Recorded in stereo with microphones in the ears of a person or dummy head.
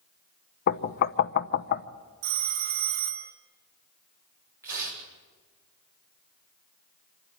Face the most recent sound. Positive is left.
turn(degrees=-15)  # may be behind; listen again after turning